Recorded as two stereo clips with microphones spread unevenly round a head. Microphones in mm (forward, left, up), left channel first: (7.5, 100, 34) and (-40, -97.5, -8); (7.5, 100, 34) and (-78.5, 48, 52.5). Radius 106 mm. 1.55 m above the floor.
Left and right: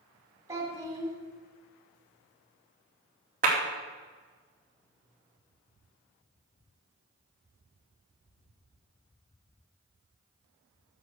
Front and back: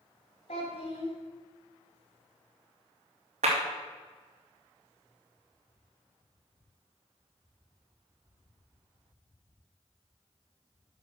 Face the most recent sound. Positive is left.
turn(degrees=-155)